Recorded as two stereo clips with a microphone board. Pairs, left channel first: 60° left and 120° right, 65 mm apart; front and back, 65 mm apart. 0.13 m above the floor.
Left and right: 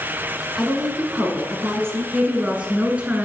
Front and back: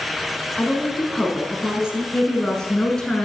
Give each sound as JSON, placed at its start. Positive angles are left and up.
{"t": 0.6, "sound": "a woman speaking", "azimuth_deg": -50, "distance_m": 1.1}
{"t": 2.1, "sound": "a woman speaking", "azimuth_deg": -70, "distance_m": 1.2}